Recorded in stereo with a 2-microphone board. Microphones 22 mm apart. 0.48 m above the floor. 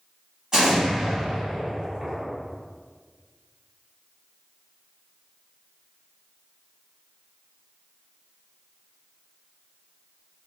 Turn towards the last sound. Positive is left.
turn(degrees=-30)  # may be behind; listen again after turning